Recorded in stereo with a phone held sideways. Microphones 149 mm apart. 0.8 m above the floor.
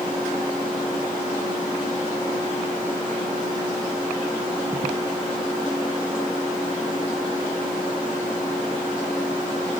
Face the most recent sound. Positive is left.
No sound to turn to.